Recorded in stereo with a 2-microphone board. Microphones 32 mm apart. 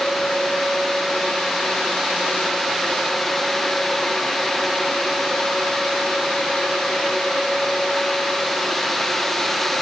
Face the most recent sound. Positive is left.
No sound to turn to.